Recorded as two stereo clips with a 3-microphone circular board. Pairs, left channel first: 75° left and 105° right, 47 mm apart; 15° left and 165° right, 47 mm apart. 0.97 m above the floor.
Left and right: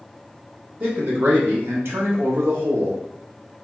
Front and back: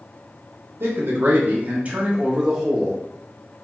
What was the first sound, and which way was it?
A man speaking, 155° right.